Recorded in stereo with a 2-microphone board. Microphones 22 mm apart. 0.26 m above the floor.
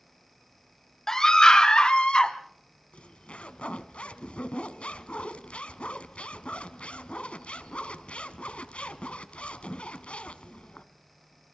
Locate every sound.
1.1 s a scream: 20° left (ahead or behind), 1.5 m; by 2.3 s 45° left (ahead or behind), 2.5 m
2.9 s a zipper: 65° left (ahead or behind), 1.0 m